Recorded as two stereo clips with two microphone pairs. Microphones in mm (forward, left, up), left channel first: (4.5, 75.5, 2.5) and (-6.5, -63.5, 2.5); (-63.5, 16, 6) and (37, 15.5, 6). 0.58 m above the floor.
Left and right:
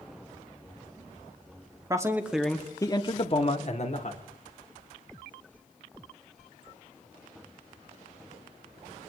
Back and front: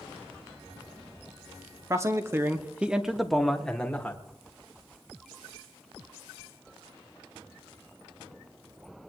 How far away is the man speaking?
About 1.2 m.